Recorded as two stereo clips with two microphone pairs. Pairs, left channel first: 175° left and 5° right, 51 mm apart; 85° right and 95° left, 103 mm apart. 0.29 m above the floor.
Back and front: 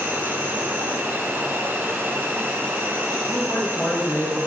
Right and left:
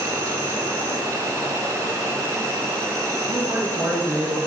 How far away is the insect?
About 1.8 m.